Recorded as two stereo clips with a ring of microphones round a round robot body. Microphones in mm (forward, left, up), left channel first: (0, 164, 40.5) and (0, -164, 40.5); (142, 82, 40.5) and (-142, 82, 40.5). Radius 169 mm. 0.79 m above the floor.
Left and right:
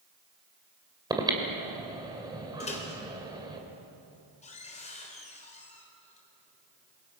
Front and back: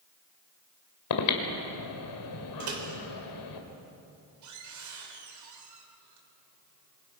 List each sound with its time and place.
1.1 s breathing: 10° right, 2.5 m
2.6 s a microwave: 160° left, 3 m